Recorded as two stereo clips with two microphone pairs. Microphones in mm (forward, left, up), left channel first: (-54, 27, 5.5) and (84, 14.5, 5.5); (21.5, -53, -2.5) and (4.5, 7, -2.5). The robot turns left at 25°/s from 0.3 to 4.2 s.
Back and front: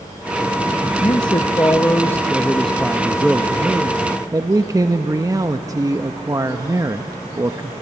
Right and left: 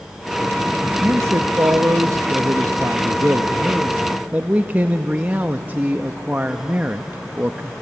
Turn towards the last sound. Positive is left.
turn(degrees=50)